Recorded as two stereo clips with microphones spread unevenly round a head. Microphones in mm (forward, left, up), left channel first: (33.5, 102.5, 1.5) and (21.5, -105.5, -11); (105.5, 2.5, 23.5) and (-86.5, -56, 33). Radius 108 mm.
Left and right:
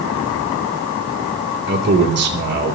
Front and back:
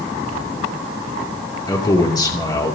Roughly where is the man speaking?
Ahead right.